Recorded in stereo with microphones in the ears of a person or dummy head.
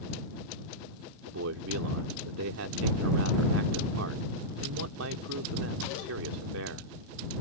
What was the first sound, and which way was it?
A man speaking, 80° right.